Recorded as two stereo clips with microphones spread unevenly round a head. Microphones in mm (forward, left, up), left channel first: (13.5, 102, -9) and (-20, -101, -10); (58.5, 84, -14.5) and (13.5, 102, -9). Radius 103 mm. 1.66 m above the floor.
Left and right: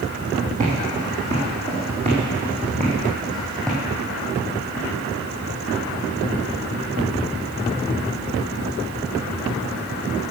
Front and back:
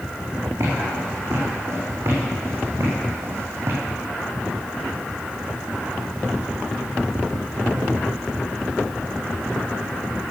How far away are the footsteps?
About 4.5 m.